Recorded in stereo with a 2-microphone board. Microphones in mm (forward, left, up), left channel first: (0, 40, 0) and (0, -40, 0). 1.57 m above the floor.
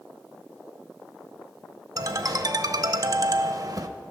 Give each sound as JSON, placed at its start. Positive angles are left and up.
{"t": 2.0, "sound": "a ringtone", "side_deg": -45, "distance_m": 0.8}